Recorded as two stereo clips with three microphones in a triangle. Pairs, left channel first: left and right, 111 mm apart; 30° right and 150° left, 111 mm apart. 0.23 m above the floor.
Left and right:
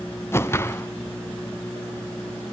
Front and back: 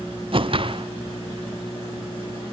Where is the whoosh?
150° left, 0.7 m.